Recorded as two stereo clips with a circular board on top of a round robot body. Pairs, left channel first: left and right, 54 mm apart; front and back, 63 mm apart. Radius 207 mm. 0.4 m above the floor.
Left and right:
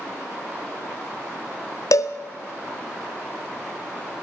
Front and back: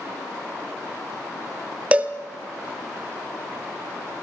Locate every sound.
1.9 s a cowbell: 110° left, 1.1 m